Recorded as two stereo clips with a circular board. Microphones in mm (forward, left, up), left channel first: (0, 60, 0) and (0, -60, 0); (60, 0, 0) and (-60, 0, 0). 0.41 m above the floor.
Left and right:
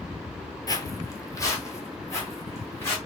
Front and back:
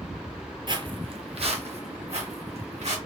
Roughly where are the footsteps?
Behind left.